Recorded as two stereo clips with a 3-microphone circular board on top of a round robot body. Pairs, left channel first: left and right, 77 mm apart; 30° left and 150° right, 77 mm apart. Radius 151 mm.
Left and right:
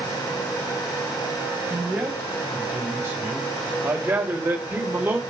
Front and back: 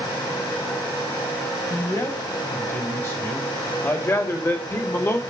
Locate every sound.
1.7 s a man speaking: 25° right, 3.5 m